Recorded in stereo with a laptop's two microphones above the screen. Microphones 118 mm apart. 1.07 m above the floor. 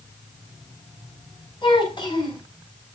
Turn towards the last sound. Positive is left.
turn(degrees=40)  # may be behind; listen again after turning